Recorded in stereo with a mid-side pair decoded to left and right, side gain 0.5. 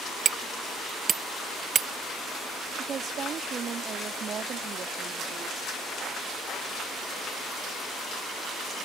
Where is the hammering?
45° right.